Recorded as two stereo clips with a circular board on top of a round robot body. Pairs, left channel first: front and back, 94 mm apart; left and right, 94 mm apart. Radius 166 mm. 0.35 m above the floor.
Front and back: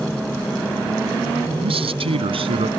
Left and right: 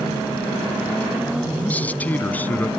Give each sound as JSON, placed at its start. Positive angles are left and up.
{"t": 1.6, "sound": "a man speaking", "azimuth_deg": 165}